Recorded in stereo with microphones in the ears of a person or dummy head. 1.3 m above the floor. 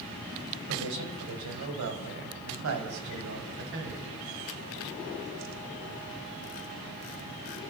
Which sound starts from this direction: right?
A man speaking, at 0.7 s.